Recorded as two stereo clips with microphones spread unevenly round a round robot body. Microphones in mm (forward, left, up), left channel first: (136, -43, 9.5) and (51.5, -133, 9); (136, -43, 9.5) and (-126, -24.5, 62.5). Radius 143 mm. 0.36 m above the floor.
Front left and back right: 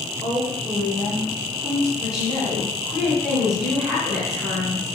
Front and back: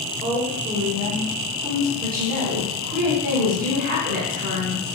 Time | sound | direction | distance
0.2 | a woman speaking | 95° right | 1.3 m
2.0 | a woman speaking | 145° left | 1.2 m